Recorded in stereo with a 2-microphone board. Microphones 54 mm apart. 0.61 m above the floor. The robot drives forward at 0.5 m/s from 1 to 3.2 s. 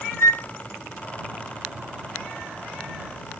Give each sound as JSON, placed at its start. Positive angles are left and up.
{"t": 0.2, "sound": "a flute", "side_deg": 55, "distance_m": 1.5}